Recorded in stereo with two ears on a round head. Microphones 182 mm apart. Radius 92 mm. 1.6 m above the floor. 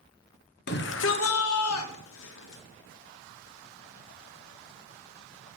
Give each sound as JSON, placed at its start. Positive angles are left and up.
{"t": 0.7, "sound": "a shout", "side_deg": 50, "distance_m": 0.9}